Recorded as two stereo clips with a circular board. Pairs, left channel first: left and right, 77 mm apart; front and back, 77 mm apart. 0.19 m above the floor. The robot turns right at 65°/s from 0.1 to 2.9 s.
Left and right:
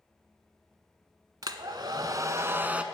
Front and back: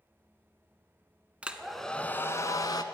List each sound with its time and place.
1.4 s a hair dryer: 110° right, 0.5 m; by 2.8 s 15° right, 0.5 m